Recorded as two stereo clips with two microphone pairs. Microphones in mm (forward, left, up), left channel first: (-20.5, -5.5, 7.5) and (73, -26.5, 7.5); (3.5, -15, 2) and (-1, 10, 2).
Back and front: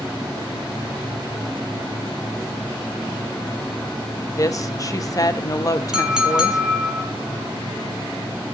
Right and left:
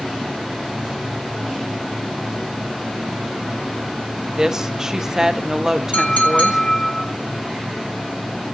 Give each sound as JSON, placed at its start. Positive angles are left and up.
{"t": 4.3, "sound": "a woman speaking", "azimuth_deg": 150, "distance_m": 1.1}
{"t": 5.9, "sound": "a clink", "azimuth_deg": -95, "distance_m": 2.0}